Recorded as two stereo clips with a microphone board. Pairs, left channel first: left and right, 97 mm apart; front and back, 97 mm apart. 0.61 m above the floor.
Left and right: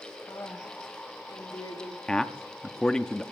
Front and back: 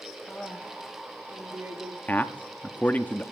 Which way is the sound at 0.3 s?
80° left.